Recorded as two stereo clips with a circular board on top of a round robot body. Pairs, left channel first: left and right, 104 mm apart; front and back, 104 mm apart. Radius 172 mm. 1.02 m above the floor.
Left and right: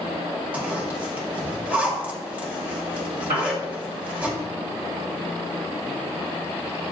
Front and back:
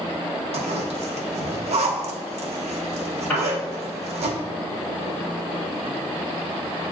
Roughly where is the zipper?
Behind.